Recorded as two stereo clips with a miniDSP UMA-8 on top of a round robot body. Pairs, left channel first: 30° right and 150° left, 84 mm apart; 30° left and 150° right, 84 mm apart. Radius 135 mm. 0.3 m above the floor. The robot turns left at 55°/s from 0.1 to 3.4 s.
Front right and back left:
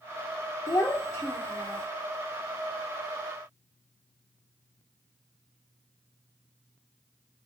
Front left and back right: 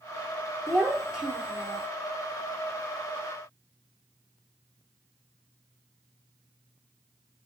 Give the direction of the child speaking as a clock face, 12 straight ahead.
2 o'clock.